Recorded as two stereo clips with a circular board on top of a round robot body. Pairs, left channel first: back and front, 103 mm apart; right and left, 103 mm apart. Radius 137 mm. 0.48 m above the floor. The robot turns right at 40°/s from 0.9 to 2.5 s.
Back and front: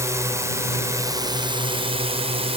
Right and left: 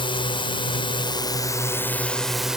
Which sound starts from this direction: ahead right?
A drone, at 0.0 s.